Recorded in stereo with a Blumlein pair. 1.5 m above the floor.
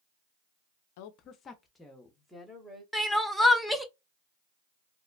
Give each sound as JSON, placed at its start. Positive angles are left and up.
{"t": 1.0, "sound": "a woman speaking", "azimuth_deg": 50, "distance_m": 0.5}
{"t": 2.9, "sound": "crying", "azimuth_deg": 0, "distance_m": 0.7}